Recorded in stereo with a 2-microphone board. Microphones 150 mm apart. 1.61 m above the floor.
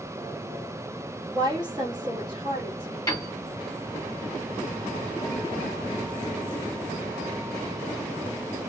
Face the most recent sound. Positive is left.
turn(degrees=25)  # may be behind; listen again after turning